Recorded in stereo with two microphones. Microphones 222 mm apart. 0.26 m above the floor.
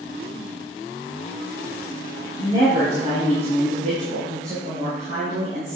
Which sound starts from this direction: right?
A woman speaking, at 2.4 s.